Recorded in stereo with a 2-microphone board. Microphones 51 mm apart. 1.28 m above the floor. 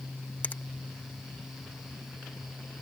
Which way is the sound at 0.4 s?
35° left (ahead or behind).